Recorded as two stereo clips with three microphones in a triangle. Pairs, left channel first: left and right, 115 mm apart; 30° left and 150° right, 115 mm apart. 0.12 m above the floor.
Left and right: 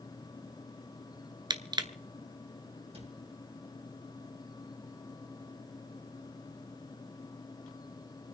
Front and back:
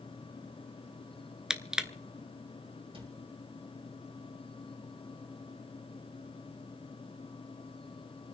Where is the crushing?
70° right, 0.8 m.